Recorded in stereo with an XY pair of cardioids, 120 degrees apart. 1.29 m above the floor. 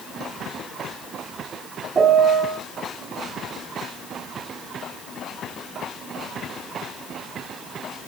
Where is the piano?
35° right, 1.8 m.